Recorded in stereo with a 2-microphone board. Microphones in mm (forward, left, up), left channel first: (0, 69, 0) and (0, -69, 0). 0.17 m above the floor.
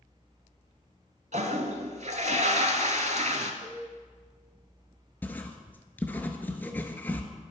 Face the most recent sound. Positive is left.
turn(degrees=15)  # may be behind; listen again after turning